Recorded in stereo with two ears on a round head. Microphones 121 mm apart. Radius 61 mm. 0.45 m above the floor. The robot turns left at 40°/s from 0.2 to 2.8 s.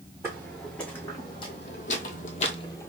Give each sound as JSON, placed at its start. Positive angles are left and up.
{"t": 0.2, "sound": "footsteps", "side_deg": -20, "distance_m": 1.8}